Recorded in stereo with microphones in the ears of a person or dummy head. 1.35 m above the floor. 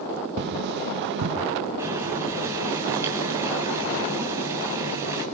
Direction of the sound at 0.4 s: 60° right (ahead or behind).